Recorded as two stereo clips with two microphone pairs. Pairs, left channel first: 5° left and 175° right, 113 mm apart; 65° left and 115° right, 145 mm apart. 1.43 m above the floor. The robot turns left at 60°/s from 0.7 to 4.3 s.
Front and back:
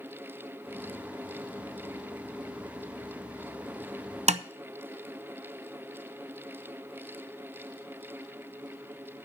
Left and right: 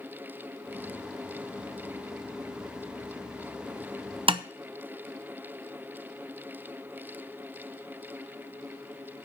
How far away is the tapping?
About 0.6 m.